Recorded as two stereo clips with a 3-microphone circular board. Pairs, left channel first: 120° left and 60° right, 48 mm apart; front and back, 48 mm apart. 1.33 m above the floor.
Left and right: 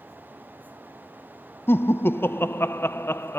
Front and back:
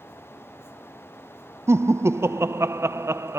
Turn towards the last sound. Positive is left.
turn(degrees=160)